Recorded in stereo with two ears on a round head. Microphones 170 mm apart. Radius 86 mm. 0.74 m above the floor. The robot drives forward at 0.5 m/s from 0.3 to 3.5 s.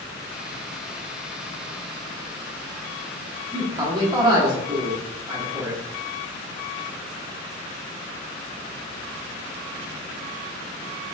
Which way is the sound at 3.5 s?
25° right (ahead or behind).